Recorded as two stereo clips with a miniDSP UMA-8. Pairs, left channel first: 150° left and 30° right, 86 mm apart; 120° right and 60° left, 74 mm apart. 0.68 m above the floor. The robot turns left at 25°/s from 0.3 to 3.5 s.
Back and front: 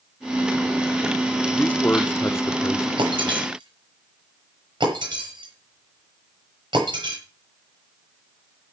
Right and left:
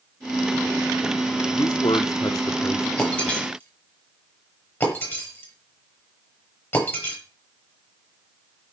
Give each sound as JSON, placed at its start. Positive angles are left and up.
{"t": 1.5, "sound": "a man speaking", "azimuth_deg": -135, "distance_m": 1.1}
{"t": 3.0, "sound": "breaking glass", "azimuth_deg": -45, "distance_m": 8.5}